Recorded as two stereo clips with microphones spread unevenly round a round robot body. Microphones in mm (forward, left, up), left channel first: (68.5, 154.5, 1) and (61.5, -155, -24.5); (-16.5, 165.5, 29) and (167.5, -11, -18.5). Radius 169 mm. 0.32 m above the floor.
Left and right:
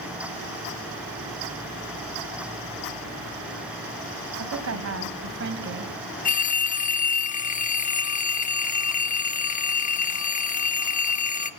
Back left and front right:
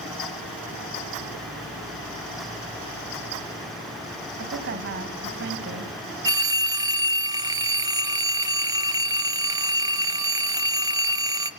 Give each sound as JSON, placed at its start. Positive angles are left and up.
{"t": 4.4, "sound": "a woman speaking", "azimuth_deg": -70, "distance_m": 2.0}
{"t": 6.2, "sound": "a phone ringing", "azimuth_deg": 25, "distance_m": 1.1}